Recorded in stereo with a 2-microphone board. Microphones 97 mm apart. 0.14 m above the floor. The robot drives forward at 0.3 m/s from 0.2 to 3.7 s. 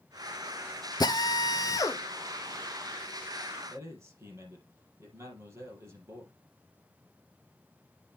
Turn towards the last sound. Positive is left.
turn(degrees=-30)  # may be behind; listen again after turning